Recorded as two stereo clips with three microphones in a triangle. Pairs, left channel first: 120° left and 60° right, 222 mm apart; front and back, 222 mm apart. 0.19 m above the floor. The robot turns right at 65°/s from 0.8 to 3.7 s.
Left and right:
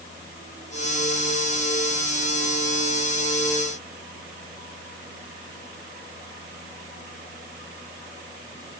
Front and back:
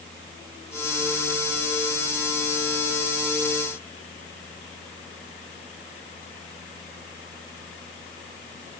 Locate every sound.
Only background noise.